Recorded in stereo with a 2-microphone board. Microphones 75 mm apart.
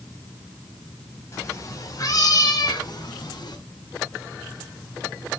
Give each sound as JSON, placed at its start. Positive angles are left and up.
{"t": 1.3, "sound": "a cat meowing", "side_deg": 35, "distance_m": 3.0}